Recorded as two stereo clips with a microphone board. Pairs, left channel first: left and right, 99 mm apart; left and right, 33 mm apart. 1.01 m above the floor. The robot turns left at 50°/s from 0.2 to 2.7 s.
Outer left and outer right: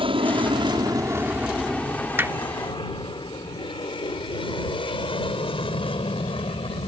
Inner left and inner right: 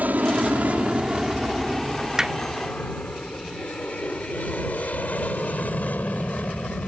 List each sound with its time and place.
0.0 s an aircraft: 60° right (ahead or behind); by 6.9 s 65° left (ahead or behind)
2.2 s hammering: 20° right (ahead or behind); by 2.4 s 30° right (ahead or behind)